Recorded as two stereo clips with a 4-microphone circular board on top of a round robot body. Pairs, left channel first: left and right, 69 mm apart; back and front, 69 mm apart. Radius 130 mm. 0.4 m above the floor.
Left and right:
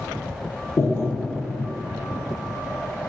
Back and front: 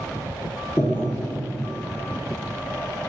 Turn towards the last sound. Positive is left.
turn(degrees=130)